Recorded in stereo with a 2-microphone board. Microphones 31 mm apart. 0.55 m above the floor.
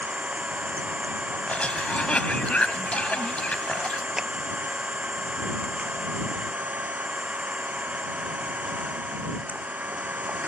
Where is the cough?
45° left (ahead or behind).